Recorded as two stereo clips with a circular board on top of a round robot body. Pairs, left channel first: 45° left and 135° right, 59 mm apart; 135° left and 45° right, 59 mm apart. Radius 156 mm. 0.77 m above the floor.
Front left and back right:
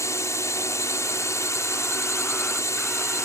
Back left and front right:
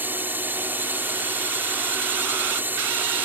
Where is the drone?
10° left.